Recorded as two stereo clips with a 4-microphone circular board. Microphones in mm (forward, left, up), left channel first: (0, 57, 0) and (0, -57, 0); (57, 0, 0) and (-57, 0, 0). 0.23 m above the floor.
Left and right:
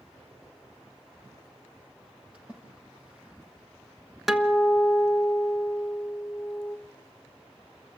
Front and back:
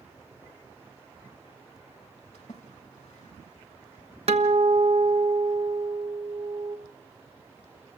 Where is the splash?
10° right, 5.5 m.